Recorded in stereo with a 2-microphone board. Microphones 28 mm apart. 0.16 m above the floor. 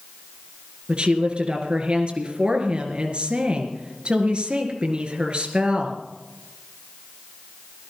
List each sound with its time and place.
0.9 s a woman speaking: 40° right (ahead or behind), 3 m